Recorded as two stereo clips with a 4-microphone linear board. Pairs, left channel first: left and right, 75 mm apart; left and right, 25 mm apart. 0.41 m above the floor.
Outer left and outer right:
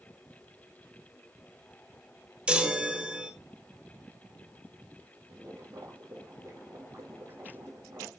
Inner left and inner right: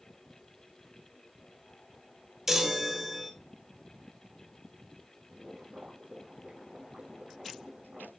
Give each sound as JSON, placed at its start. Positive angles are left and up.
{"t": 2.5, "sound": "a chime", "side_deg": -15, "distance_m": 1.2}
{"t": 5.3, "sound": "boiling", "side_deg": -40, "distance_m": 3.5}